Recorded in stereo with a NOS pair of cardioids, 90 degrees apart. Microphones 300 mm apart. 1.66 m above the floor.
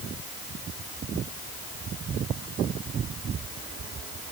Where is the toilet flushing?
I don't hear a toilet flushing.